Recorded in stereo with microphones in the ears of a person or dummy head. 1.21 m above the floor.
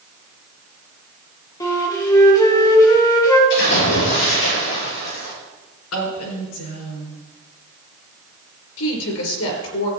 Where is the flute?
20° left (ahead or behind), 2 m.